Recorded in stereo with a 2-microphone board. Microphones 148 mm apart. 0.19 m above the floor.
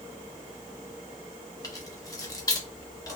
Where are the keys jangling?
25° left (ahead or behind), 0.7 m.